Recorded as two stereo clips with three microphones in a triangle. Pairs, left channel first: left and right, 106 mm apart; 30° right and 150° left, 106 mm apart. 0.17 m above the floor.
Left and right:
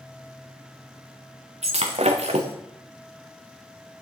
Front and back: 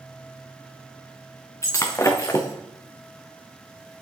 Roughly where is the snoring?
No snoring in this recording.